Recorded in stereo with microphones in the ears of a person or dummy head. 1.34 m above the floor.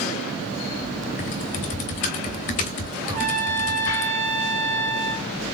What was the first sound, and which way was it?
Typing on a keyboard, 30° left (ahead or behind).